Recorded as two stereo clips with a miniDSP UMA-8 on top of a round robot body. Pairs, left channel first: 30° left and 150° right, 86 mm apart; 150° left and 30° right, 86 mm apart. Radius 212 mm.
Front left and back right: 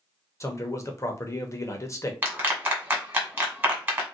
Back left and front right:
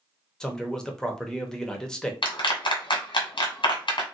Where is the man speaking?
70° left, 1.0 m.